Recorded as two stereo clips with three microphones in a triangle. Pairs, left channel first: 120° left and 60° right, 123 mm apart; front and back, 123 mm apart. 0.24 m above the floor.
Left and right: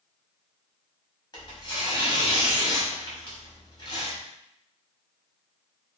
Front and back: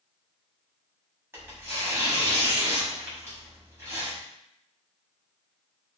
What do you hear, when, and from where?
1.3 s tearing paper: 125° left, 1.0 m